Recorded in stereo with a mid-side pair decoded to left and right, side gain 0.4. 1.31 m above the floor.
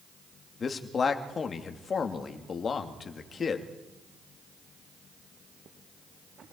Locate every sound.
0.6 s a man speaking: 50° left, 3 m